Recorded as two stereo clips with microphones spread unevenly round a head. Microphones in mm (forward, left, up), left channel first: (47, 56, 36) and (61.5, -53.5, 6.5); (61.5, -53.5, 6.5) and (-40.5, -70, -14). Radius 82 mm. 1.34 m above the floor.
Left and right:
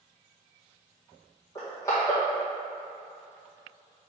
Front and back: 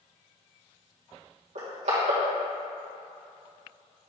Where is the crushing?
170° left, 1.9 m.